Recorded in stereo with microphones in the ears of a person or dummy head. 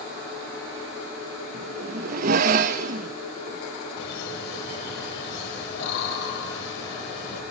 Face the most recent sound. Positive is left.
turn(degrees=65)  # may be behind; listen again after turning